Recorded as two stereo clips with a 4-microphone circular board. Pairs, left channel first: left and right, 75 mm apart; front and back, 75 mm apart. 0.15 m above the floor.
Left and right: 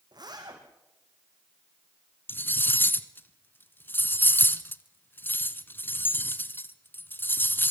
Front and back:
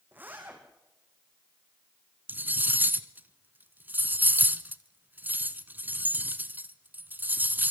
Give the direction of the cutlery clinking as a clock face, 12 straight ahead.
8 o'clock.